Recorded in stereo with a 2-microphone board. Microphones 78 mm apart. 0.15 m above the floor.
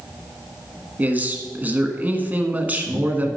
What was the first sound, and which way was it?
A man speaking, 20° right (ahead or behind).